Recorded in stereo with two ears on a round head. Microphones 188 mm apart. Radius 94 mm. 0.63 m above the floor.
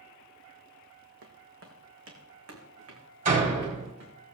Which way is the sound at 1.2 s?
60° right (ahead or behind).